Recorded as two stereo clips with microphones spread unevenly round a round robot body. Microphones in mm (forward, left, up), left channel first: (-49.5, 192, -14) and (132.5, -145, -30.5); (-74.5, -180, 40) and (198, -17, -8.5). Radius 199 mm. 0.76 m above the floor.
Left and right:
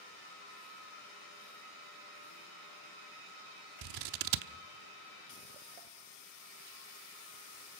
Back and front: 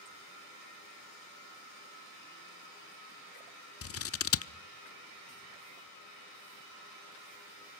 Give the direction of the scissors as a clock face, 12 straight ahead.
3 o'clock.